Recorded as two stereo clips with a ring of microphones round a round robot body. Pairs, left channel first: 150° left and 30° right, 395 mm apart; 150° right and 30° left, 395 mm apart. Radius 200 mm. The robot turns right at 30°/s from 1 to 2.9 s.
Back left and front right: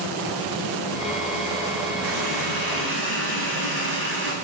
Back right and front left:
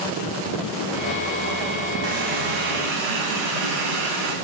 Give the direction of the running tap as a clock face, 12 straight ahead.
12 o'clock.